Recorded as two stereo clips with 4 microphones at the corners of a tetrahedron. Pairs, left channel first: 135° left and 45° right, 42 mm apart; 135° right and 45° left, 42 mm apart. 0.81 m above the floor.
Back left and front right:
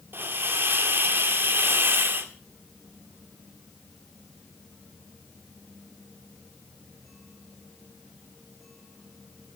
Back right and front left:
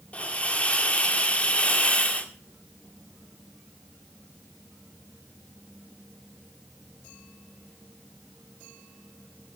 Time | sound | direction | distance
0.1 | a hiss | 75° right | 1.8 m